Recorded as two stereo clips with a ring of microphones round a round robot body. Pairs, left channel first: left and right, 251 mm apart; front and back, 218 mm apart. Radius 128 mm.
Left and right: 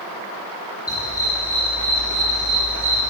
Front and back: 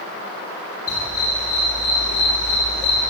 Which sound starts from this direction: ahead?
A dog barking, at 0.9 s.